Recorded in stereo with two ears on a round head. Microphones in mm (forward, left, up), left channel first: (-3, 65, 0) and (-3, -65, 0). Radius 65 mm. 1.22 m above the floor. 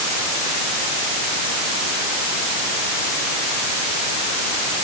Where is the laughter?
No laughter in this recording.